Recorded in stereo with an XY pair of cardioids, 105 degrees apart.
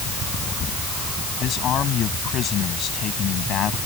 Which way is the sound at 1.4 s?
65° left.